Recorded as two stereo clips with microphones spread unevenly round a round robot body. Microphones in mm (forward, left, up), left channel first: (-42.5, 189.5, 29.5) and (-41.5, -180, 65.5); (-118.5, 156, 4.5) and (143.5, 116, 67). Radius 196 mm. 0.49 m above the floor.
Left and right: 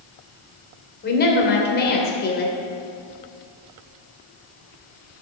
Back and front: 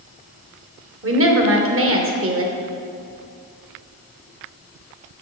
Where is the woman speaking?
30° left, 2 m.